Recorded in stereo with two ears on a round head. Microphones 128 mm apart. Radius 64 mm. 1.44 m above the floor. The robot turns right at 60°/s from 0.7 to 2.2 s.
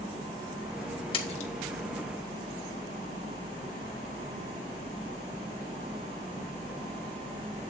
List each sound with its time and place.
1.1 s a splash: 35° left (ahead or behind), 1.4 m; by 1.5 s 55° left (ahead or behind), 1.4 m